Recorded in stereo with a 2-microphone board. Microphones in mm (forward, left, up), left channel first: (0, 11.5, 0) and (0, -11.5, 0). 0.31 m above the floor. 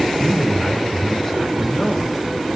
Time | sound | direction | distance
0.2 | a man speaking | 15° left (ahead or behind) | 1.8 m